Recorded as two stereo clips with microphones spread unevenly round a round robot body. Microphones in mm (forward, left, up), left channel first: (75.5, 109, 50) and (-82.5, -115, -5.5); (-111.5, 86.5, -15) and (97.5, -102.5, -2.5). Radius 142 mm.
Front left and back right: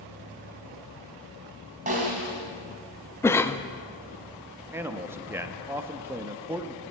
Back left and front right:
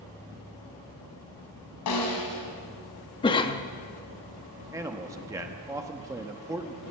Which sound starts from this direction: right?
A man speaking, at 4.7 s.